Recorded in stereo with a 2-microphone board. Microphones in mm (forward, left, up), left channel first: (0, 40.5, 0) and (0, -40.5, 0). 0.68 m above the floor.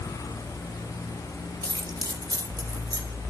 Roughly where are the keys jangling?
Right.